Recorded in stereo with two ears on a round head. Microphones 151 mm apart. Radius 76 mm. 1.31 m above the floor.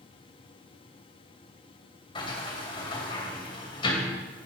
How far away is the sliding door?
About 3 m.